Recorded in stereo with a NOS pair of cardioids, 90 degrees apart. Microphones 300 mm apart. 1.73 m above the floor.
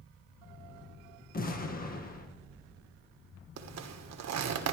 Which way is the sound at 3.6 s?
60° right.